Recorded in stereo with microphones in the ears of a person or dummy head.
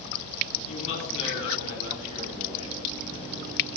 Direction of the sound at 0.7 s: 40° left (ahead or behind).